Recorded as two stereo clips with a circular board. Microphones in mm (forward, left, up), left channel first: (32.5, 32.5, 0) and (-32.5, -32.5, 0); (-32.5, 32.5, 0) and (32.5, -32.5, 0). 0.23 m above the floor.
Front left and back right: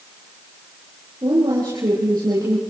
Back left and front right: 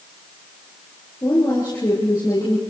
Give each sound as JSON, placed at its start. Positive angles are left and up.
{"t": 1.2, "sound": "a woman speaking", "azimuth_deg": 180, "distance_m": 7.5}